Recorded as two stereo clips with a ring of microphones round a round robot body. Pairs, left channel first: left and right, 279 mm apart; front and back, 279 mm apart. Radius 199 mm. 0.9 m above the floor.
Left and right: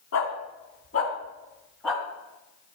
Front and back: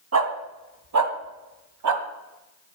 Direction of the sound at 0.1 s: 150° left.